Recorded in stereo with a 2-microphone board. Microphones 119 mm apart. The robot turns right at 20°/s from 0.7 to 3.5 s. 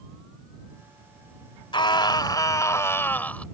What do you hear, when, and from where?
1.7 s a scream: 135° left; by 3.5 s 170° left